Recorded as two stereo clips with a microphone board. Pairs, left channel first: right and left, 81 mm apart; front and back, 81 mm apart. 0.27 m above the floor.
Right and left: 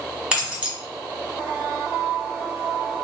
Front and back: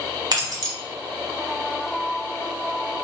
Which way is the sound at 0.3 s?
165° left.